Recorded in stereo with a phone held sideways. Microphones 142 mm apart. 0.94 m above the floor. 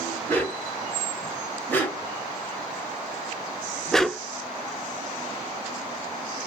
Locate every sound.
0.3 s a dog barking: 15° left (ahead or behind), 2 m; by 4.2 s centre (ahead or behind), 0.5 m